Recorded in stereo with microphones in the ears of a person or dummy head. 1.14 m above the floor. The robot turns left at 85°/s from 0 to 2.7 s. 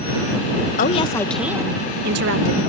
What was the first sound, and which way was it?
A woman speaking, 55° left.